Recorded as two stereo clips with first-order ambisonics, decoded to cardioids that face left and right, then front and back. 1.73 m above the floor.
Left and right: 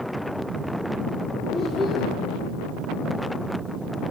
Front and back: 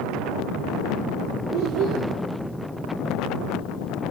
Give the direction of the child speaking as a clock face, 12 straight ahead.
6 o'clock.